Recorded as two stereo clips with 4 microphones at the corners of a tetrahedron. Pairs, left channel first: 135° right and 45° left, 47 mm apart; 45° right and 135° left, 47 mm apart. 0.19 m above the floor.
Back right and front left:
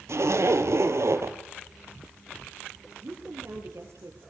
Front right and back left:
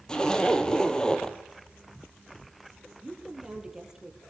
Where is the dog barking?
No dog barking in this recording.